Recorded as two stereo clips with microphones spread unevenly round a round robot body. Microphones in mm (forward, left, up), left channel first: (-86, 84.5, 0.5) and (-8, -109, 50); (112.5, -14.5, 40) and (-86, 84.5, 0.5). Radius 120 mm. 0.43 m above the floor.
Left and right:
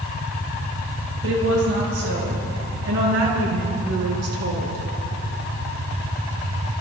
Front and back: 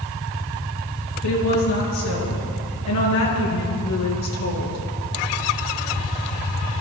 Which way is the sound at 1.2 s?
25° right.